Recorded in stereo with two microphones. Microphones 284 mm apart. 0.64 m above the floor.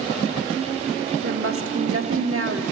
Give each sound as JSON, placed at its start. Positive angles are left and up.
{"t": 1.2, "sound": "a woman speaking", "side_deg": -55, "distance_m": 1.4}